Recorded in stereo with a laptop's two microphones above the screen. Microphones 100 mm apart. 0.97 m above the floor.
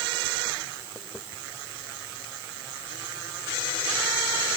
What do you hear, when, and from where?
Only background noise.